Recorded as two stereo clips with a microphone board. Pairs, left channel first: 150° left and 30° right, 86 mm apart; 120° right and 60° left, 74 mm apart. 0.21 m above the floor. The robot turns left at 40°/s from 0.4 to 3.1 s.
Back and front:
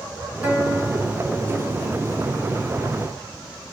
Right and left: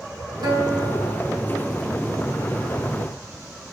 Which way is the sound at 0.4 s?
45° left.